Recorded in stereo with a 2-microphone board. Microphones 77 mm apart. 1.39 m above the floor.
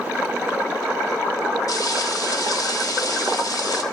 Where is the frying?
55° left (ahead or behind), 2 m.